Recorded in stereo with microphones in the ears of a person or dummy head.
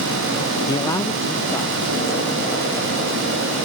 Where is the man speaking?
15° left (ahead or behind), 0.5 m; by 3.2 s 10° left (ahead or behind), 2.5 m.